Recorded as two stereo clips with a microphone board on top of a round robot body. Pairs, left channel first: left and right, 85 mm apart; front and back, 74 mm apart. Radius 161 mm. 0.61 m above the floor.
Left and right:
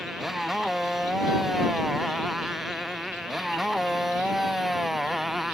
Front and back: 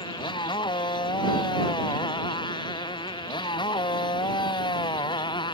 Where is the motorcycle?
Straight ahead.